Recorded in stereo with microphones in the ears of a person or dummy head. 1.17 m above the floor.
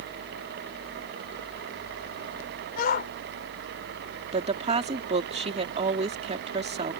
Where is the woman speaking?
30° right (ahead or behind).